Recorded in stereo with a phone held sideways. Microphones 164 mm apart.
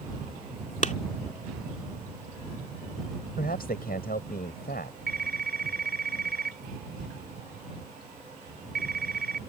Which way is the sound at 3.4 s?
65° left (ahead or behind).